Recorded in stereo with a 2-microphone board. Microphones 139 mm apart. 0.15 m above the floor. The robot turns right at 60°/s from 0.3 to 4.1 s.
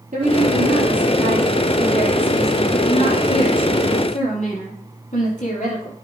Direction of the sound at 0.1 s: 110° right.